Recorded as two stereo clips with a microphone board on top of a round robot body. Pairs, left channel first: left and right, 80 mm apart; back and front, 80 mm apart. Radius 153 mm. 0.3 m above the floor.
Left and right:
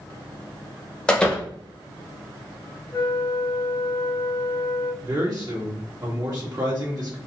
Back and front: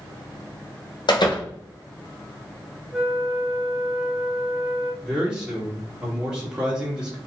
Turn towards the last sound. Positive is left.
turn(degrees=-75)